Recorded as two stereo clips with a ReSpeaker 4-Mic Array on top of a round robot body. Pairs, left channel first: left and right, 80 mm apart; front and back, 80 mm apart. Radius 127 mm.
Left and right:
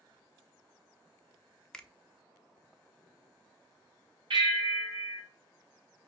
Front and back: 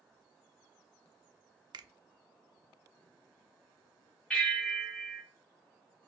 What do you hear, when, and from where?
1.7 s a finger snap: 170° left, 0.5 m
4.3 s a bell: 80° right, 2 m